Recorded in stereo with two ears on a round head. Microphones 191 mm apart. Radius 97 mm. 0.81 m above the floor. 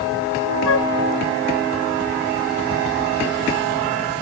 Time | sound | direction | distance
0.7 | a flute | 65° left (ahead or behind) | ?